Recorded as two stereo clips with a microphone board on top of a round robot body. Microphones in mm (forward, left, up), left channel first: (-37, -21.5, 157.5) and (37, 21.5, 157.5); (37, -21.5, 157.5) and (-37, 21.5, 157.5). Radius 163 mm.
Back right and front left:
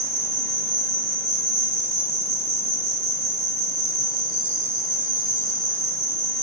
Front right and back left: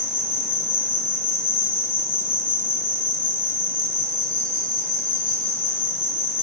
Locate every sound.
0.0 s an insect: 20° right, 2.5 m